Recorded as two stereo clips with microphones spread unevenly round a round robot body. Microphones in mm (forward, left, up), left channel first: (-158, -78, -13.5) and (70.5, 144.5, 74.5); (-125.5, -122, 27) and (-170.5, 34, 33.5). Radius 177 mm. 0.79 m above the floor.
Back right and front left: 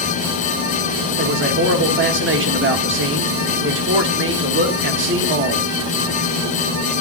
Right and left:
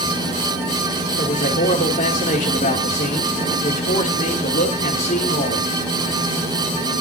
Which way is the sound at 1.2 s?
20° right.